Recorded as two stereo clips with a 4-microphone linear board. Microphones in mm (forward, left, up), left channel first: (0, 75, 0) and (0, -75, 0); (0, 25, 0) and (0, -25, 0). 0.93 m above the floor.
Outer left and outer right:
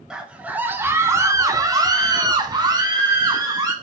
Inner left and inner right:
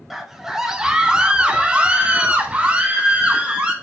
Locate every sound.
0.1 s a scream: 5° right (ahead or behind), 0.9 m; by 3.7 s 25° right (ahead or behind), 1.6 m